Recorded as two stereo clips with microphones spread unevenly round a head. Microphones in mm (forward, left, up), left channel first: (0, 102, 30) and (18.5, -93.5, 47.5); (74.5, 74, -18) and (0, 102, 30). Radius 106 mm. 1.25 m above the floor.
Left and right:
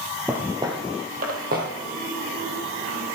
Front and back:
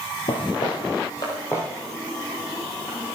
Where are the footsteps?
20° right, 1.3 m; by 3.2 s 125° right, 4 m.